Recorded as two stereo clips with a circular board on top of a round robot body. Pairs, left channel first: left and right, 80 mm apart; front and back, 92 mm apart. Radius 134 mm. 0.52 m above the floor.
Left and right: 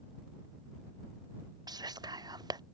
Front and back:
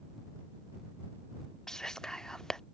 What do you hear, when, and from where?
1.7 s whispering: 80° right